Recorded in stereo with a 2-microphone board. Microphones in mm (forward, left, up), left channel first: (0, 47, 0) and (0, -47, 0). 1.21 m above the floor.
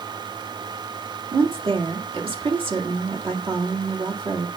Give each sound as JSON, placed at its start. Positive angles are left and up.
{"t": 1.3, "sound": "a woman speaking", "side_deg": -70, "distance_m": 2.0}